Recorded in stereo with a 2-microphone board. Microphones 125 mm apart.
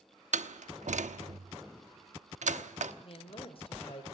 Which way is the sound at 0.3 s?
70° right (ahead or behind).